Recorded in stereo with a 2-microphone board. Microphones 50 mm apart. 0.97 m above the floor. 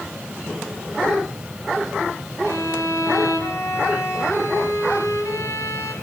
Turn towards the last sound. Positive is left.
turn(degrees=75)  # may be behind; listen again after turning